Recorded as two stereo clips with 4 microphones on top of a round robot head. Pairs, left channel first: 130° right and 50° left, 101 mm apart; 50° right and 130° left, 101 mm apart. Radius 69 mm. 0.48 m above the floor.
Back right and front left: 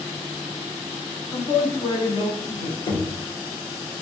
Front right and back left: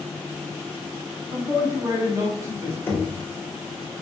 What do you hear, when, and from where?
1.3 s a man speaking: straight behind, 2 m; by 2.8 s 160° right, 3 m
2.9 s knocking: 120° right, 1.8 m